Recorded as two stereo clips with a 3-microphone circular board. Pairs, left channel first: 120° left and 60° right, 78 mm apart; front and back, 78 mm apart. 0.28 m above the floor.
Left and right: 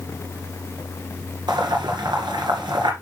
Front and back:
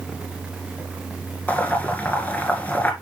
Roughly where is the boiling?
Right.